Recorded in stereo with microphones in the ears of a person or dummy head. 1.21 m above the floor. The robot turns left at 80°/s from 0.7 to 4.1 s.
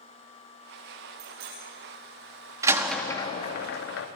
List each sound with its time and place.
1.2 s a bicycle bell: 40° right (ahead or behind), 9.5 m; by 1.6 s 70° right (ahead or behind), 9.5 m
2.6 s a door slam: 25° right (ahead or behind), 1.4 m; by 4.1 s 85° left, 1.4 m